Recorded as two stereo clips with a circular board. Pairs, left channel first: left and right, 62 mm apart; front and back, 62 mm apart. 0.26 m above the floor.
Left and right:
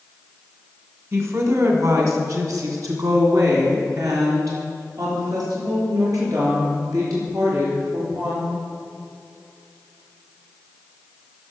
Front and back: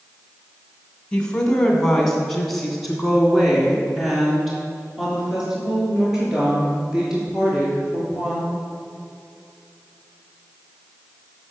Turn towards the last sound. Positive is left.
turn(degrees=-105)